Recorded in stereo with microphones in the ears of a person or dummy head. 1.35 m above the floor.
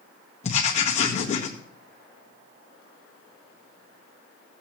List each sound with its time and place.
0.4 s writing: 30° left (ahead or behind), 1.6 m